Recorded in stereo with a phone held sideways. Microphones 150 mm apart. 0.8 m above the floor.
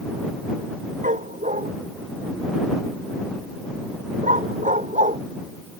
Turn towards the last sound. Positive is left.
turn(degrees=-55)  # may be behind; listen again after turning